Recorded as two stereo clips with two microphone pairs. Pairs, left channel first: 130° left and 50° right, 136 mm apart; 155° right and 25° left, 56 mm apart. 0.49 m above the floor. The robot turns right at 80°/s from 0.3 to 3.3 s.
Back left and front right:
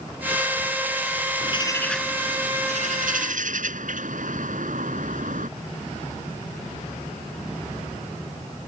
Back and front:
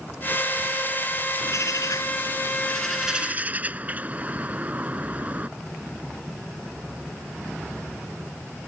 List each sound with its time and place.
1.4 s a bird: 175° left; by 5.5 s 35° right